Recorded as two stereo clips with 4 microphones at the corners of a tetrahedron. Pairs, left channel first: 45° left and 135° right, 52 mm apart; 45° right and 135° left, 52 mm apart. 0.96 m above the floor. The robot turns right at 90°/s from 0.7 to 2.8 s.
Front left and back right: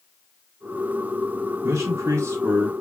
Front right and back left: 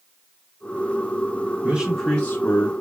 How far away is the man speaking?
About 1.9 m.